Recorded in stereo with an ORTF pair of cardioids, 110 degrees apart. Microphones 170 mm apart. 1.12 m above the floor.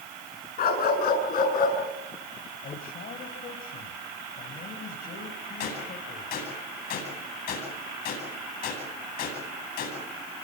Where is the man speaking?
60° left, 6 m.